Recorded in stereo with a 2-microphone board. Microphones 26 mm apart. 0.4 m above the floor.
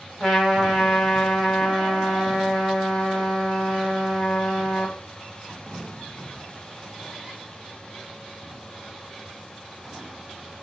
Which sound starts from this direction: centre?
A trumpet, at 0.2 s.